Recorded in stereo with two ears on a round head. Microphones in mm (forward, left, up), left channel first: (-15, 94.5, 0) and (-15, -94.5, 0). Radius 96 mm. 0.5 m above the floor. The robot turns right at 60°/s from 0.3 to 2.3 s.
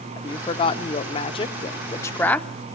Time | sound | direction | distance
0.2 | a woman speaking | 20° left (ahead or behind) | 0.8 m